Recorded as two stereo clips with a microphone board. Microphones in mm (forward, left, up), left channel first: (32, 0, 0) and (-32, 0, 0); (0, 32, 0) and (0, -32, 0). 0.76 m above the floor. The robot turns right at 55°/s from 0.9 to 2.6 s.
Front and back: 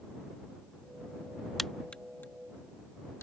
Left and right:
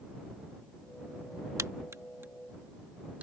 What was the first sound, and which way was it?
A crack, 85° right.